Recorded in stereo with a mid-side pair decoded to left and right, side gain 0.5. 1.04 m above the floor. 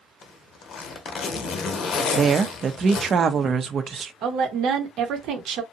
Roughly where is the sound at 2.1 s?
Ahead right.